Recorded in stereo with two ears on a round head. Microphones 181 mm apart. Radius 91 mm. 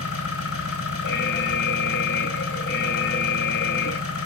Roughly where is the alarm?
Left.